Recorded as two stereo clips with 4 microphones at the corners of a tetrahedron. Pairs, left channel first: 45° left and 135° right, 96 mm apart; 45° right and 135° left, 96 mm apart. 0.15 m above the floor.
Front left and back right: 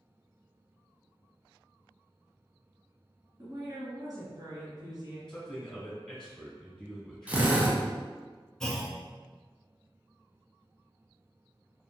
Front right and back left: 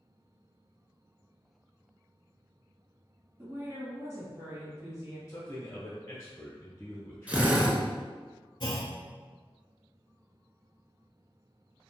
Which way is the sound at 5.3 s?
35° right.